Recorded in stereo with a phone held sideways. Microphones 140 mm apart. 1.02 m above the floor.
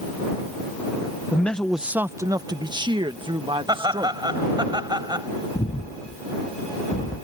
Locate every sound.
1.3 s a man speaking: 15° left (ahead or behind); by 4.3 s 35° right (ahead or behind)
3.7 s laughter: 30° right (ahead or behind)
5.5 s breathing: 75° left (ahead or behind)